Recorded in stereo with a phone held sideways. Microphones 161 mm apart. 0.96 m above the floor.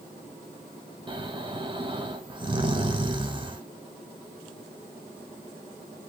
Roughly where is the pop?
No pop in this recording.